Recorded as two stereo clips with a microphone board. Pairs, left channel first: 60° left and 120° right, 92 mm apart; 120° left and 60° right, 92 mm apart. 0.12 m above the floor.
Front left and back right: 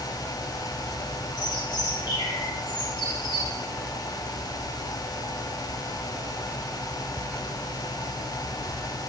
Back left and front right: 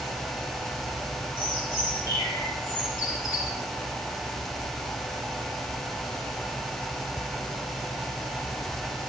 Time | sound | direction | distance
1.4 | a bird | 75° left | 5 m